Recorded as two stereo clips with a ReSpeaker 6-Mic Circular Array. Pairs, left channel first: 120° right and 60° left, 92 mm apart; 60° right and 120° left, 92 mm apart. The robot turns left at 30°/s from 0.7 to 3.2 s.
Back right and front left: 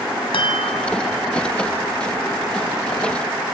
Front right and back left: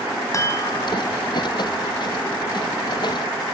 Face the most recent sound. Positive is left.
turn(degrees=170)